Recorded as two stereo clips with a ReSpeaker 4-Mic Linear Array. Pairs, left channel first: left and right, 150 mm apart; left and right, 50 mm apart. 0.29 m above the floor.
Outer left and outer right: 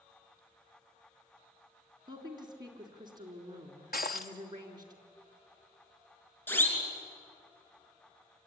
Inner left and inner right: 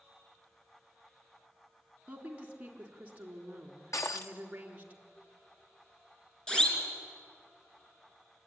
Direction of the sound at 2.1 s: 30° right (ahead or behind).